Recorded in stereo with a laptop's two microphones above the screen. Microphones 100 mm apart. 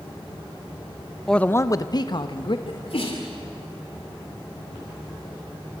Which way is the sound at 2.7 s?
70° left (ahead or behind).